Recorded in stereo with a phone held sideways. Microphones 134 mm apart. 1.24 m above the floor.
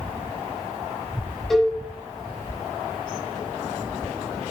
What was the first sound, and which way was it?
A cowbell, centre (ahead or behind).